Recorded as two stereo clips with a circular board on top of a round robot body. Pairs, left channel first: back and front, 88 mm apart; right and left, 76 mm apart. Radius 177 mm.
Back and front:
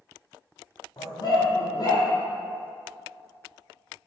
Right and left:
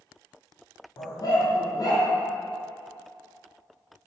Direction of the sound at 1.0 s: 135° right.